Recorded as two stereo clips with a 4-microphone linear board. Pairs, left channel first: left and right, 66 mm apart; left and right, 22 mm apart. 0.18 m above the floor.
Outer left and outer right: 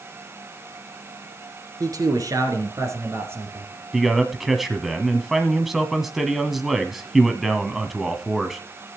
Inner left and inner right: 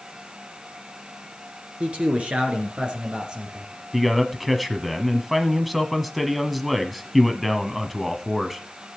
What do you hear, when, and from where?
1.8 s a man speaking: 65° right (ahead or behind), 3.5 m; by 3.7 s 30° right (ahead or behind), 4 m
3.9 s a man speaking: 5° right (ahead or behind), 1.2 m